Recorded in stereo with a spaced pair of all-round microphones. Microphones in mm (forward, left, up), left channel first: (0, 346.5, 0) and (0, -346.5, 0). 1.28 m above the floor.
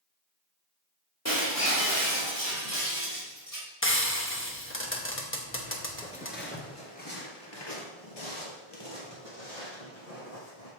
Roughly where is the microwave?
No microwave in this recording.